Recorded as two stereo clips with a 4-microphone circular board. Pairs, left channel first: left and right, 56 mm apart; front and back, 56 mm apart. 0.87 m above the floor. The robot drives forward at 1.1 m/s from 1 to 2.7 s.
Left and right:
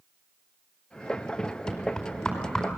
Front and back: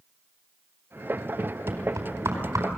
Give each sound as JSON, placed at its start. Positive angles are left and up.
{"t": 1.7, "sound": "knocking", "azimuth_deg": 165, "distance_m": 4.0}